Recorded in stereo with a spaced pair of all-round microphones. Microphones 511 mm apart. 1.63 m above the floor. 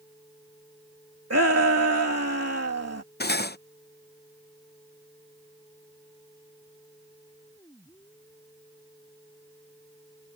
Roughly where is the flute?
No flute in this recording.